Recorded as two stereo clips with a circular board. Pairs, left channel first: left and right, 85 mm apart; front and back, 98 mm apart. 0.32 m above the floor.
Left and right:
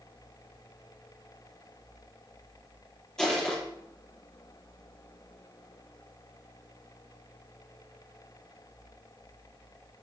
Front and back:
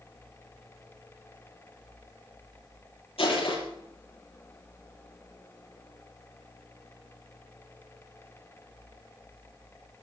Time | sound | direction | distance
3.2 | crushing | 5° left | 8 m